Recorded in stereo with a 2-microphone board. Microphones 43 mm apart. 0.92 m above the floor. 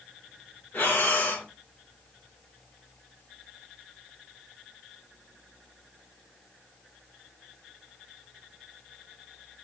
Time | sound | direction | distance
0.7 | breathing | 50° left (ahead or behind) | 1.2 m